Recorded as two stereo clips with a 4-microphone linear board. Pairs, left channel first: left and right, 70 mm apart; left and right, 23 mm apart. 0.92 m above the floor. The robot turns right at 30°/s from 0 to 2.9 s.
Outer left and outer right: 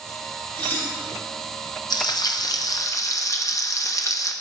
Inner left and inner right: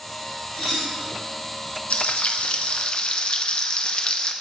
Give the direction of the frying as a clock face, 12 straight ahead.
9 o'clock.